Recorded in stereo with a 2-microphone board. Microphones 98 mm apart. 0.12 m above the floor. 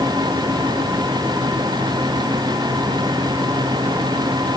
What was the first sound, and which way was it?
Only background noise.